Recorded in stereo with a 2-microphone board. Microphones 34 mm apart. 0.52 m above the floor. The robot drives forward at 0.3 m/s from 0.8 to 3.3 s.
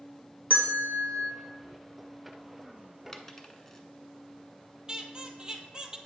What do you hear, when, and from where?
0.5 s a bell: 55° right (ahead or behind), 1.2 m; by 1.3 s 60° right (ahead or behind), 1.2 m
3.1 s a dropped coin: 10° left (ahead or behind), 0.6 m
4.9 s a squeak: 25° right (ahead or behind), 0.7 m